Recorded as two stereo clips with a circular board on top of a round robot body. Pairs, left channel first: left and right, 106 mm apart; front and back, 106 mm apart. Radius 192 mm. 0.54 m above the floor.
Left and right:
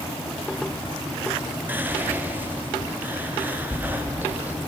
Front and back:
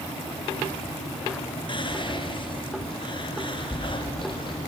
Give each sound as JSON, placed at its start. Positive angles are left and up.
{"t": 1.7, "sound": "whispering", "azimuth_deg": -20, "distance_m": 1.4}